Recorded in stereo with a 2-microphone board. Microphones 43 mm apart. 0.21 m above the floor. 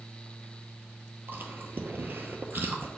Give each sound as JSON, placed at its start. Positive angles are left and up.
{"t": 1.3, "sound": "chewing", "side_deg": -55, "distance_m": 0.7}